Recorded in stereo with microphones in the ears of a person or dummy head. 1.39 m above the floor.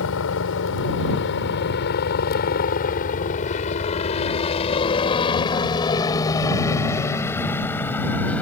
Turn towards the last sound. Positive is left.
turn(degrees=10)  # may be behind; listen again after turning